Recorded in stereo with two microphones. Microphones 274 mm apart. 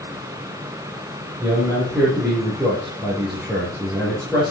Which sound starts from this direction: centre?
A man speaking, at 1.4 s.